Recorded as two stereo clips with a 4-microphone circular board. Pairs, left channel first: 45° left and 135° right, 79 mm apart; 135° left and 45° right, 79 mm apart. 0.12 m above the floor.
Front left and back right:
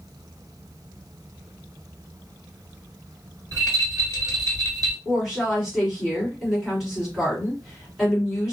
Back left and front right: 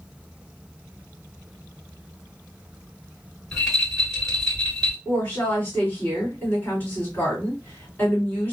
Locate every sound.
3.5 s a rattle: 145° right, 2 m
5.0 s a woman speaking: 145° left, 1.7 m